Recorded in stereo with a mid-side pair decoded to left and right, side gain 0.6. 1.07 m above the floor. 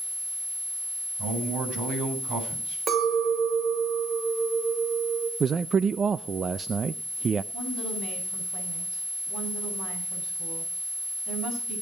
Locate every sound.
1.2 s a man speaking: 70° right, 8 m
2.9 s a clink: 45° right, 3.5 m
5.4 s a man speaking: 35° right, 0.5 m
7.5 s a woman speaking: 65° right, 7.5 m